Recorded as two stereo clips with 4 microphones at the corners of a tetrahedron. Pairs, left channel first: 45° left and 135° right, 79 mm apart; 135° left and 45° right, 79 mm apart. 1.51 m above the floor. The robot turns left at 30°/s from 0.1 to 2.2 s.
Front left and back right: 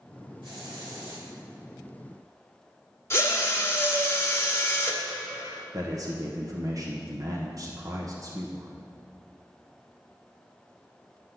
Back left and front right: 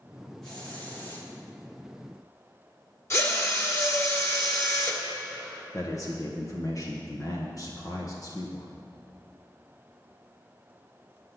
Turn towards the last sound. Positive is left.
turn(degrees=180)